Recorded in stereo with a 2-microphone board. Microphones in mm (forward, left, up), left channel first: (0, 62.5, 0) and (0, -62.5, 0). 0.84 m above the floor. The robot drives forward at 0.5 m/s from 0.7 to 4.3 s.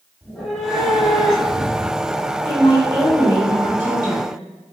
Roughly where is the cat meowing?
Centre.